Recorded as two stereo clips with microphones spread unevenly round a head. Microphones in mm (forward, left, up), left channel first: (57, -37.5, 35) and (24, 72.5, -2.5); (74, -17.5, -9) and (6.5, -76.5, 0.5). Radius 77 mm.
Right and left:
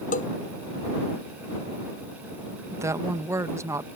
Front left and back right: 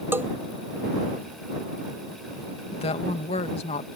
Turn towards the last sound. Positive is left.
turn(degrees=40)